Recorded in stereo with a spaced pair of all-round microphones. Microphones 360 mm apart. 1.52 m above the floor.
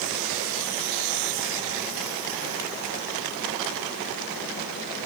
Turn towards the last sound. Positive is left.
No sound to turn to.